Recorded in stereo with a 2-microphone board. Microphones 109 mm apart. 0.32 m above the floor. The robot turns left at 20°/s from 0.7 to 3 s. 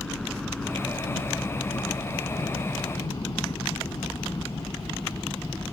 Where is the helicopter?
5° left (ahead or behind); by 5.8 s 20° left (ahead or behind).